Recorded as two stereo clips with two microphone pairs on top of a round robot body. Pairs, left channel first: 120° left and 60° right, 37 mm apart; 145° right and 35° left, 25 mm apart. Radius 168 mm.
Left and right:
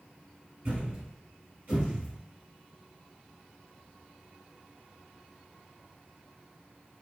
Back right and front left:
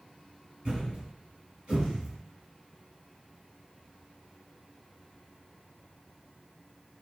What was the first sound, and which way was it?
A thud, 20° right.